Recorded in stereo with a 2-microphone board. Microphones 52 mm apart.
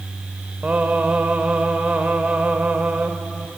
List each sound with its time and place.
0.6 s singing: 30° right (ahead or behind), 1.4 m